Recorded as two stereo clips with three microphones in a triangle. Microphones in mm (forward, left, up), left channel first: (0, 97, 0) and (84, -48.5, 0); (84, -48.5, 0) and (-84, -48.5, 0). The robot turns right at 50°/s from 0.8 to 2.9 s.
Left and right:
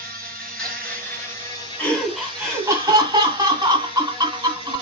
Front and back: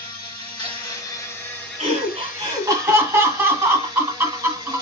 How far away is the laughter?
About 1.8 m.